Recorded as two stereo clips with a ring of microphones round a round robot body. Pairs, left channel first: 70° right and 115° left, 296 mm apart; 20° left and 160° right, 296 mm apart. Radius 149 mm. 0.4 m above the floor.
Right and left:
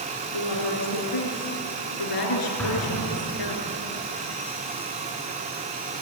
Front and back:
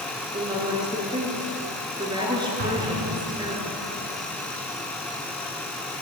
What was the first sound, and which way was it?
A woman speaking, 80° right.